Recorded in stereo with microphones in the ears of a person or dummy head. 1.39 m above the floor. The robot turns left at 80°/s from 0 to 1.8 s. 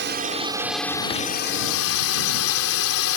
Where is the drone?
120° right; by 3.2 s 95° left.